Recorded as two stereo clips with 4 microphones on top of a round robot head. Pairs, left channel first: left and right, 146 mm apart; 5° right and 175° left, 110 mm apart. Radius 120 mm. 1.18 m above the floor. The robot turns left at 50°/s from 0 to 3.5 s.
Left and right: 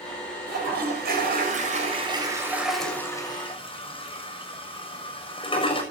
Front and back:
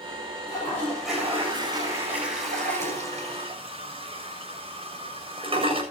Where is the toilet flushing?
65° right, 6.5 m; by 5.8 s 145° left, 6.5 m.